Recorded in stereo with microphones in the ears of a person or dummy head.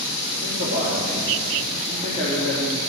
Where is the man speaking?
35° right (ahead or behind), 4 m.